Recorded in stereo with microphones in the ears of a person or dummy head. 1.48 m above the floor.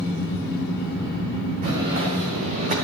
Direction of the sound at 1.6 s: 40° right (ahead or behind).